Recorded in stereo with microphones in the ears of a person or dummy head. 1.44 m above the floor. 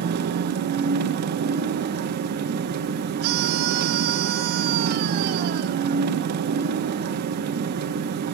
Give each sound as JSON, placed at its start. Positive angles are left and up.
{"t": 0.0, "sound": "an engine running", "side_deg": -60, "distance_m": 1.2}
{"t": 3.2, "sound": "a scream", "side_deg": -60, "distance_m": 2.5}